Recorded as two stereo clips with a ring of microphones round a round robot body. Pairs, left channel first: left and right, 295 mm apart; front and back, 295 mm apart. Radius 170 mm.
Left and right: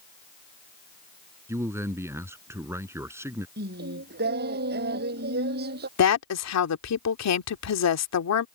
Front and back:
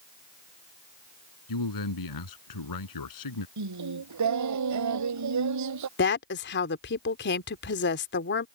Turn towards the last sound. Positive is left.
turn(degrees=55)